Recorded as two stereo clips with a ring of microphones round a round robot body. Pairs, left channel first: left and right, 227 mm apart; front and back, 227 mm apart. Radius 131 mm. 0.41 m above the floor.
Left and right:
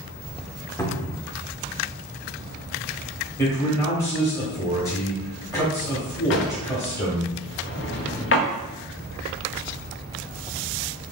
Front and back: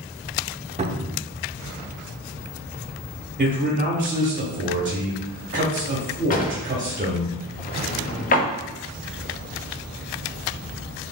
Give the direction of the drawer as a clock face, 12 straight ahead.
10 o'clock.